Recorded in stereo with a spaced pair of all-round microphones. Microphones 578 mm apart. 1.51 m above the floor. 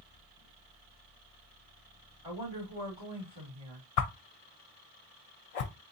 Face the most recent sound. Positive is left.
turn(degrees=80)